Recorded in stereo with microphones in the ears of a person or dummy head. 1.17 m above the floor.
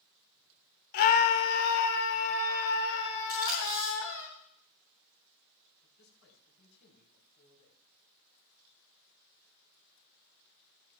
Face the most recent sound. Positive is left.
turn(degrees=60)  # may be behind; listen again after turning